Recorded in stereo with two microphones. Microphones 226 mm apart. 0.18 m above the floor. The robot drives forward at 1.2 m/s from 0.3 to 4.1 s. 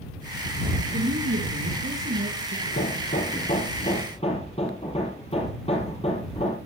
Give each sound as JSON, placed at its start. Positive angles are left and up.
{"t": 0.9, "sound": "a woman speaking", "side_deg": -50, "distance_m": 3.0}
{"t": 2.7, "sound": "hammering", "side_deg": 50, "distance_m": 1.7}